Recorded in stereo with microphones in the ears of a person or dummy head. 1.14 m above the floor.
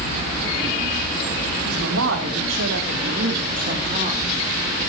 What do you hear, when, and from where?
1.6 s a woman speaking: 85° right, 3.5 m; by 4.9 s 10° right (ahead or behind), 3 m